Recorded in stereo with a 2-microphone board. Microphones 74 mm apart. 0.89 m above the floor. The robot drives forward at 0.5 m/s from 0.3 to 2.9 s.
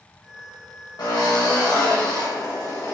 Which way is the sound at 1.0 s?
65° left (ahead or behind).